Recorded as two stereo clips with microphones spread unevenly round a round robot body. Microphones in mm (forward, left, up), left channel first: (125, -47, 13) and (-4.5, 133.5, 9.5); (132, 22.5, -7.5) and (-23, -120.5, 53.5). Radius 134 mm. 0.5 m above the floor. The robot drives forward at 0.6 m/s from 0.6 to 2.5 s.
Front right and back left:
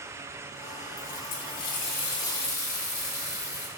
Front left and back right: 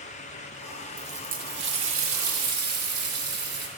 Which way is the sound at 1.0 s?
65° right.